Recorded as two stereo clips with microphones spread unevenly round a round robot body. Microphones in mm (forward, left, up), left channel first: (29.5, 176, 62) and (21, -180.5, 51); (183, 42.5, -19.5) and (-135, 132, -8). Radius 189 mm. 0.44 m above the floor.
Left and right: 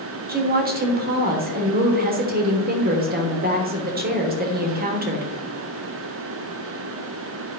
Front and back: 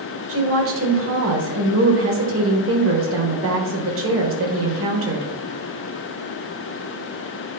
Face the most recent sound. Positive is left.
turn(degrees=-150)